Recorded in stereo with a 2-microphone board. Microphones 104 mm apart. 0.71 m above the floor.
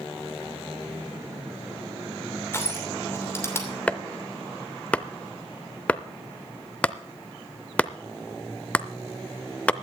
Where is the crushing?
25° left (ahead or behind), 2.5 m.